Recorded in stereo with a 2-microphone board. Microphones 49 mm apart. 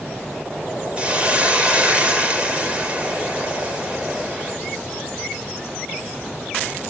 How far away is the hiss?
About 3 m.